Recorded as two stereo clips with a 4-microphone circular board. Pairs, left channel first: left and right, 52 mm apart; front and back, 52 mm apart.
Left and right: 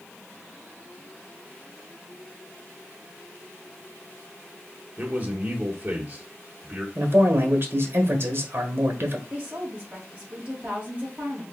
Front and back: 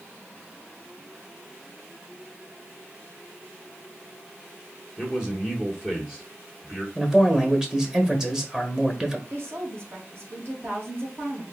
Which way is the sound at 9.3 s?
150° right.